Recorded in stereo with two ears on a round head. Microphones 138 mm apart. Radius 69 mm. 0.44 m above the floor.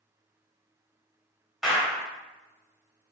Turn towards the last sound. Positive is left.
turn(degrees=0)  # may be behind; listen again after turning